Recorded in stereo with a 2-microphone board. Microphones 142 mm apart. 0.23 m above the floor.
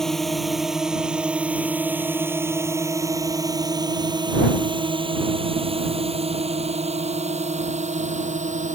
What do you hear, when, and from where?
0.0 s a drone: centre (ahead or behind); by 8.8 s 60° right (ahead or behind)